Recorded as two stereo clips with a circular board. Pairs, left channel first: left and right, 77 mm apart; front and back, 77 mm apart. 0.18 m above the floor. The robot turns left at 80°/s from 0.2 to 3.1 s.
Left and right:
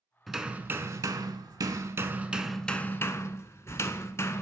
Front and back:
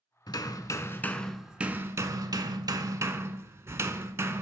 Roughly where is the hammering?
Ahead.